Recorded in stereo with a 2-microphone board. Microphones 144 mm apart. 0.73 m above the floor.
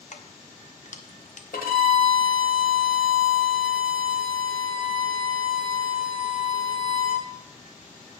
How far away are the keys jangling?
About 0.7 m.